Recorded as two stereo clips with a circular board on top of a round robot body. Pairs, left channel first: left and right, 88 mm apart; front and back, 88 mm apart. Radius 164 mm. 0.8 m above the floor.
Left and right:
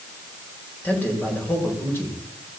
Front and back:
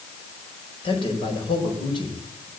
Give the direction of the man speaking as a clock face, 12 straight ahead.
11 o'clock.